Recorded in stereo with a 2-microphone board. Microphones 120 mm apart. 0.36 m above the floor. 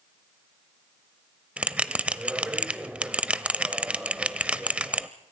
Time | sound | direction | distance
1.6 | a bell | 10° right (ahead or behind) | 0.6 m